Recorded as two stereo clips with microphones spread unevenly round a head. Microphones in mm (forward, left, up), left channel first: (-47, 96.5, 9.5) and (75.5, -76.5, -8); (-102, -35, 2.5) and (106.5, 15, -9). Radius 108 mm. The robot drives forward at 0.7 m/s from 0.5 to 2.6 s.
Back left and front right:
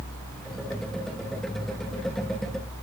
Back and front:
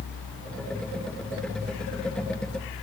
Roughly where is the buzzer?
No buzzer in this recording.